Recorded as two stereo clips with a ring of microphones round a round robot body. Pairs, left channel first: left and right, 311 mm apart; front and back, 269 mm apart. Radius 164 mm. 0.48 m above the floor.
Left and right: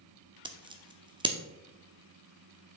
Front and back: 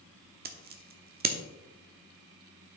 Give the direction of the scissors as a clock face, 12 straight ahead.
5 o'clock.